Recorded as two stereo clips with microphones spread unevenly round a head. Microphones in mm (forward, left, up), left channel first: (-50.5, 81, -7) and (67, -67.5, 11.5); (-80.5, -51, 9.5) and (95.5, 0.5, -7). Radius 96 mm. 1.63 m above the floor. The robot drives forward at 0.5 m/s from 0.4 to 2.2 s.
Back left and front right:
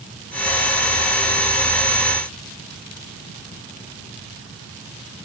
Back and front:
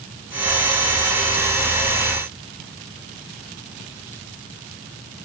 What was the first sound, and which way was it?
Only background noise.